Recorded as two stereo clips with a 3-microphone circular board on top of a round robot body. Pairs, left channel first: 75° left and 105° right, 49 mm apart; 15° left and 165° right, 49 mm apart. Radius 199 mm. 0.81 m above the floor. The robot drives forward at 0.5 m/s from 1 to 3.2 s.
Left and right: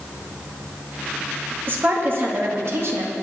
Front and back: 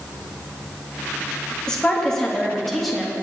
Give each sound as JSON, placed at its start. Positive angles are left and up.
{"t": 1.7, "sound": "a woman speaking", "azimuth_deg": -60, "distance_m": 2.5}